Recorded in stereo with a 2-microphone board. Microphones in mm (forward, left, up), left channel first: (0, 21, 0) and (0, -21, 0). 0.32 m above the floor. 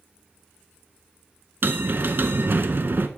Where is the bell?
60° right (ahead or behind), 0.5 m.